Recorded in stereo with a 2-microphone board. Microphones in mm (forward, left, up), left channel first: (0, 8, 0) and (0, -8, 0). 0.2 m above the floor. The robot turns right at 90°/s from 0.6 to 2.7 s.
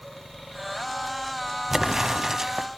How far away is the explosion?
About 0.8 m.